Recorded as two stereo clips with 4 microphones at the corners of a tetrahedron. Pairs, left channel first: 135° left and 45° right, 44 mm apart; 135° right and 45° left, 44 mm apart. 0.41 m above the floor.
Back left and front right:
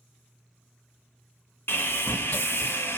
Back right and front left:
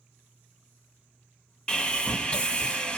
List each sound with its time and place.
1.7 s sawing: 160° left, 1.0 m